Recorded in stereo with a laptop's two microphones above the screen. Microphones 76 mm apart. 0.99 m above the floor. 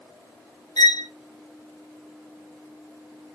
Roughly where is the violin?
Left.